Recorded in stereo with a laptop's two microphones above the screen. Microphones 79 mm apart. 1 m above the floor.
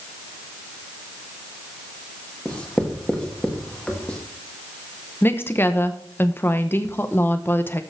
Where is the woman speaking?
25° left (ahead or behind), 0.8 m.